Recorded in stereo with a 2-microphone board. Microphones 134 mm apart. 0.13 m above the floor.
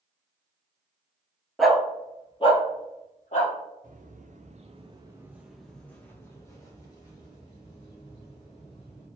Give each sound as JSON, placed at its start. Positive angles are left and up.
{"t": 1.6, "sound": "a dog barking", "side_deg": 0, "distance_m": 0.8}
{"t": 3.8, "sound": "footsteps", "side_deg": -85, "distance_m": 1.7}